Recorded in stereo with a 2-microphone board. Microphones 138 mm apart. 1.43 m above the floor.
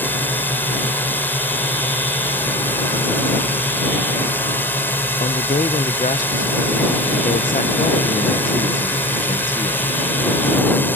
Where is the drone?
15° left (ahead or behind).